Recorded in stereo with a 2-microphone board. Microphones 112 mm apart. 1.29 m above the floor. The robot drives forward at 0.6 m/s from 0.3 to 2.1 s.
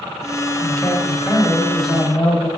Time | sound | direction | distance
0.6 | a man speaking | 15° left (ahead or behind) | 0.8 m